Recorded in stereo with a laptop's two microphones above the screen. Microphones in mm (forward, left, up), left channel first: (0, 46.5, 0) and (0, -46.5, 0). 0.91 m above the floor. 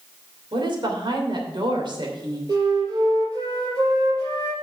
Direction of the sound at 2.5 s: 45° right (ahead or behind).